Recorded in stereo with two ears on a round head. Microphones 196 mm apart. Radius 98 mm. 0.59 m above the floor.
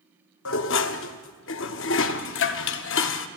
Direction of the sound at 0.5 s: 60° left (ahead or behind).